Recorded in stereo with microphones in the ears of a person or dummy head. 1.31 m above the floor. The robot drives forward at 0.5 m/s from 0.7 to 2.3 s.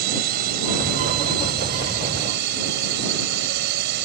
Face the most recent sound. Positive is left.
turn(degrees=-60)  # may be behind; listen again after turning